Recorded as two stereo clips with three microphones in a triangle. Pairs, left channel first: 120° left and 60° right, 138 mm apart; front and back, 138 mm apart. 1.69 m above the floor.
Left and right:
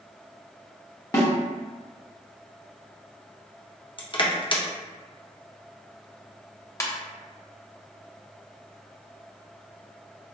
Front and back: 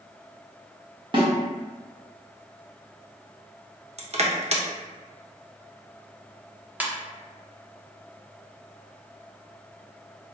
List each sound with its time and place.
1.1 s a snare drum: 170° left, 1.1 m
4.0 s crushing: 160° left, 0.6 m
6.8 s a ringtone: 125° left, 0.7 m